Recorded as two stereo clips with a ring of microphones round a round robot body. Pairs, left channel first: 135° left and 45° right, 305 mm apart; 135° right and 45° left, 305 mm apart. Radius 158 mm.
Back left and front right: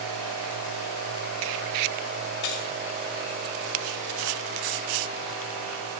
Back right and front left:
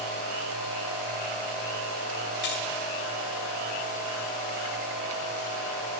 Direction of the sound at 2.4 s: 165° left.